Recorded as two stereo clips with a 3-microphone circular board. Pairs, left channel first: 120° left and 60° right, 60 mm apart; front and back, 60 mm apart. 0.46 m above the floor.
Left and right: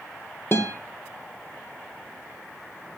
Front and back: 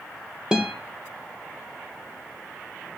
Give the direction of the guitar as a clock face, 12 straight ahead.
8 o'clock.